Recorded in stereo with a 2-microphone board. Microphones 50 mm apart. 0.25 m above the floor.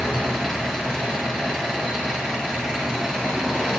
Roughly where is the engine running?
Centre.